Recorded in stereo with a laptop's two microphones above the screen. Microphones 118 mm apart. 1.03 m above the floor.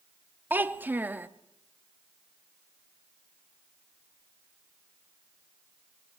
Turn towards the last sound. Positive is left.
turn(degrees=-15)  # may be behind; listen again after turning